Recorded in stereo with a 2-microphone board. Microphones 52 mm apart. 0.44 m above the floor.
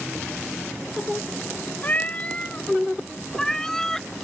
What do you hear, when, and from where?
1.8 s a cat meowing: 35° left (ahead or behind); by 4.1 s 10° left (ahead or behind)